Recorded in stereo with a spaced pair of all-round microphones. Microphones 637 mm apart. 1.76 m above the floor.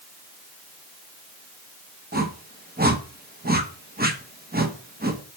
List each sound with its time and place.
2.1 s a whoosh: 15° right (ahead or behind), 1.0 m